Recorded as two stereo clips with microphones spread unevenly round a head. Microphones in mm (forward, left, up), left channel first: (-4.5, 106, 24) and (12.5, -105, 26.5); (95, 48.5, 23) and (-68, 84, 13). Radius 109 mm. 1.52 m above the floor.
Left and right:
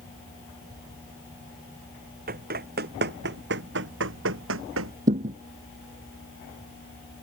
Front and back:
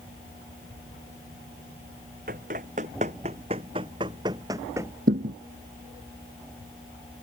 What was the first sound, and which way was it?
Running footsteps, 135° right.